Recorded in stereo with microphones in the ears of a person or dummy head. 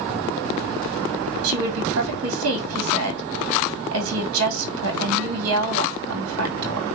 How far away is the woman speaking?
About 3.5 m.